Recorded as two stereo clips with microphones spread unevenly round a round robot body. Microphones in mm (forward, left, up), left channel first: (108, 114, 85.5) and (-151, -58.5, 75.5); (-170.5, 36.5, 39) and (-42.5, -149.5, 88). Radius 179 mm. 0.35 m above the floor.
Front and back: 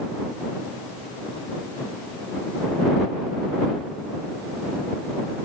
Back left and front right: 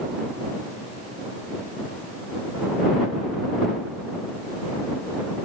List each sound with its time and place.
Only background noise.